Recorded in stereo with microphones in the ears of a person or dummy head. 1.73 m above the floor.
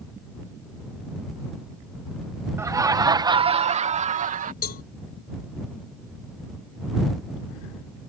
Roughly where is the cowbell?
Left.